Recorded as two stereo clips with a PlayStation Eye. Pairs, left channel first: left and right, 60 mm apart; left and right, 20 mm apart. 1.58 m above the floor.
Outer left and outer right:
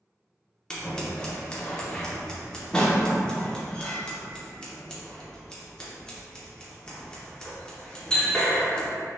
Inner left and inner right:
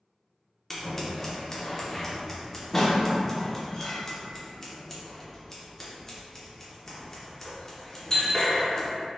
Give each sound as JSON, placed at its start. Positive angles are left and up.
{"t": 0.7, "sound": "scissors", "side_deg": 15, "distance_m": 0.7}